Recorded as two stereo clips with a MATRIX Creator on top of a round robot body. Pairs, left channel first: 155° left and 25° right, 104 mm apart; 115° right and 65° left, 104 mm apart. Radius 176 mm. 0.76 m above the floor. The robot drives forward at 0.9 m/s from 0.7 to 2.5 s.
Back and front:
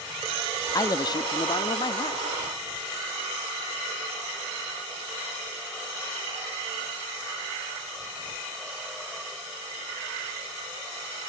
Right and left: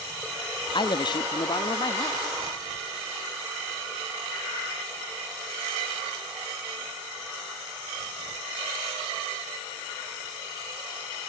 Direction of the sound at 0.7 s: 150° right.